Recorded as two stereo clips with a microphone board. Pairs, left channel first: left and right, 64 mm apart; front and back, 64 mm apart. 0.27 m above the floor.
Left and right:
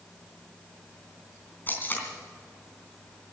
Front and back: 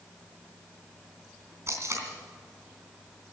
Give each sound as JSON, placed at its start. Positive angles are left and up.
{"t": 1.7, "sound": "tape being pulled", "azimuth_deg": 145, "distance_m": 3.5}